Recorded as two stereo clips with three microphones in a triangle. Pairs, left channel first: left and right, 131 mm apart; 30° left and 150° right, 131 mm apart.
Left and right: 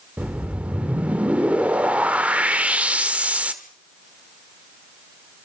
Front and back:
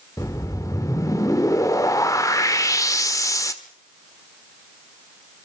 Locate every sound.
0.2 s a whoosh: 20° right, 1.5 m